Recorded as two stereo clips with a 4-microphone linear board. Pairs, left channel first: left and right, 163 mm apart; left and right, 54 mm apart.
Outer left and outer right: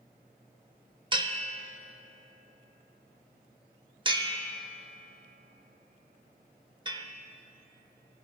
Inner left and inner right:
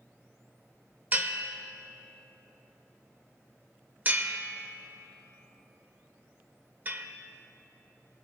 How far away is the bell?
About 0.6 m.